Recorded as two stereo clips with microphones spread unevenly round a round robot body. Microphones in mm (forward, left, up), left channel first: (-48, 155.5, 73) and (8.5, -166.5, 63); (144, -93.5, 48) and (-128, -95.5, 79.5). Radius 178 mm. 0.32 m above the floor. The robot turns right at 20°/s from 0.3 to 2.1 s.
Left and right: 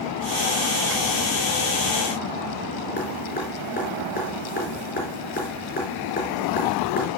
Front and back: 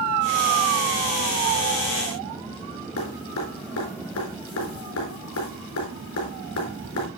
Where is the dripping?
35° left, 4 m.